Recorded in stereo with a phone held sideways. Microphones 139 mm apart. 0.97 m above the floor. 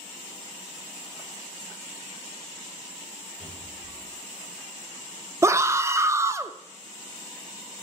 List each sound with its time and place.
3.4 s a cupboard door: 55° left (ahead or behind), 6.5 m
5.4 s a scream: 20° right (ahead or behind), 0.6 m